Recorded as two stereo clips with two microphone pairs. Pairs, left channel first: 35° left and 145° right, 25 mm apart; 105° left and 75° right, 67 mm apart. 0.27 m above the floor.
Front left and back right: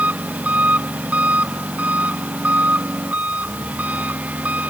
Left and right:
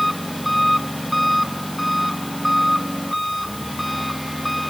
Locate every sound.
0.0 s an engine running: 165° right